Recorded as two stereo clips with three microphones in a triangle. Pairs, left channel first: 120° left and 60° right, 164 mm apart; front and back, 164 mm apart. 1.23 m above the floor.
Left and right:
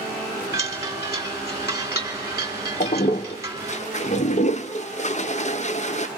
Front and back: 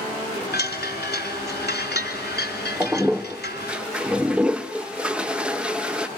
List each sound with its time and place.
0.5 s a chime: 10° left, 3.5 m
2.8 s a toilet flushing: 100° left, 0.7 m